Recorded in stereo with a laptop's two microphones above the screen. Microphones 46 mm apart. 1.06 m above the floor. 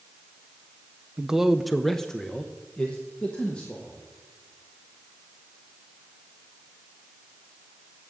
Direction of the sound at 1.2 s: 15° right (ahead or behind).